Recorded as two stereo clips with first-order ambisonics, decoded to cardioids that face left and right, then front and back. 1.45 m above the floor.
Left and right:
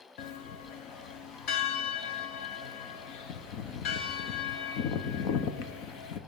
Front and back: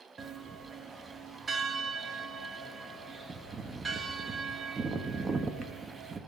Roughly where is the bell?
Left.